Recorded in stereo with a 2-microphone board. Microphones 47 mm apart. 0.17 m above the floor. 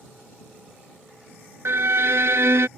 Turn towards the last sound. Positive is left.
turn(degrees=-65)  # may be behind; listen again after turning